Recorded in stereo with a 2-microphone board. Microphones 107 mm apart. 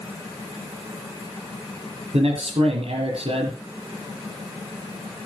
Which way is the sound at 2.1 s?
65° right (ahead or behind).